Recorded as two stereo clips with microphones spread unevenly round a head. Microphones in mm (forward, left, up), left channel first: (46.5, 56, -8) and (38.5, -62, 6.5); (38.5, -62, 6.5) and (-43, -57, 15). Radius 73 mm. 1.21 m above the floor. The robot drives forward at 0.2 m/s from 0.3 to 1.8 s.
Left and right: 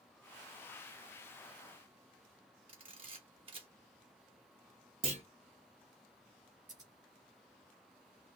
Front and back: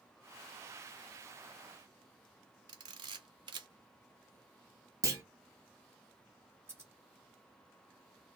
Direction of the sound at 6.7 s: 140° right.